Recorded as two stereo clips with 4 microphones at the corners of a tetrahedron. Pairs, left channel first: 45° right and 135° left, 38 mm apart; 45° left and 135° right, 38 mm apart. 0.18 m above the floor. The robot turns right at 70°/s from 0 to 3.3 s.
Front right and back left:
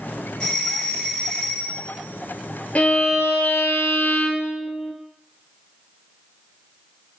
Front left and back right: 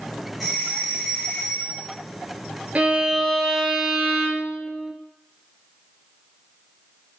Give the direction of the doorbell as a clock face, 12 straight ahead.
2 o'clock.